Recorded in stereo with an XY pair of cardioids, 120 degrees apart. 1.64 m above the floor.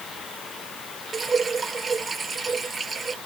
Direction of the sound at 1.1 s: 25° right.